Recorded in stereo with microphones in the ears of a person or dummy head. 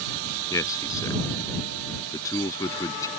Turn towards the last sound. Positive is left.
turn(degrees=20)  # may be behind; listen again after turning